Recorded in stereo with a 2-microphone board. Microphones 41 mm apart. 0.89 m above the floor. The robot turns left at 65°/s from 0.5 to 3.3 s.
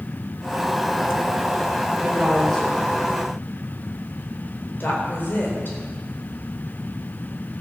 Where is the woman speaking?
25° right (ahead or behind), 4 m; by 5.8 s 55° left (ahead or behind), 4 m.